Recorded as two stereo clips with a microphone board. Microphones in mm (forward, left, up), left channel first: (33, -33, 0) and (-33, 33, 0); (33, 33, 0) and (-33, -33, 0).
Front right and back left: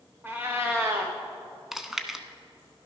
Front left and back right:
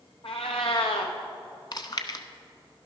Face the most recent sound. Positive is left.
turn(degrees=50)